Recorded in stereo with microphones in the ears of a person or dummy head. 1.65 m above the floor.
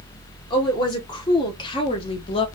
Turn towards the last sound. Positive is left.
turn(degrees=25)  # may be behind; listen again after turning